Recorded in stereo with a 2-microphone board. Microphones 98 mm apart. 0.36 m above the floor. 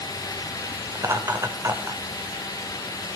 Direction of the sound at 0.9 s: 35° right (ahead or behind).